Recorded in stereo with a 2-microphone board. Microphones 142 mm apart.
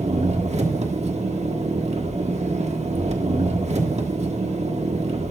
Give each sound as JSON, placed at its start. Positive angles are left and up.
{"t": 0.0, "sound": "an engine running", "side_deg": -50, "distance_m": 1.4}